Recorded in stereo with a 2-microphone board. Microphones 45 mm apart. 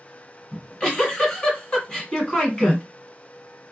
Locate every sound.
0.5 s a giggle: 20° left (ahead or behind), 1.8 m